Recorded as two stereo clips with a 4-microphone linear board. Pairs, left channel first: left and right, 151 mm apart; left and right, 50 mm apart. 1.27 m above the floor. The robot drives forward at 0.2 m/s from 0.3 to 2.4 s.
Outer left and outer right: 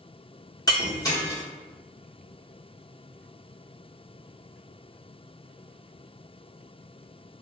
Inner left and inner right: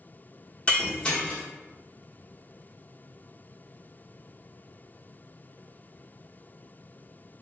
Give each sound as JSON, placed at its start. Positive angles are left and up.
{"t": 0.7, "sound": "breaking glass", "side_deg": 25, "distance_m": 1.1}